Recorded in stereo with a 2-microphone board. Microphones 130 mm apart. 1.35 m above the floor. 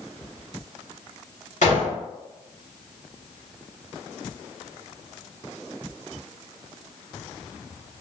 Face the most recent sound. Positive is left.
turn(degrees=75)  # may be behind; listen again after turning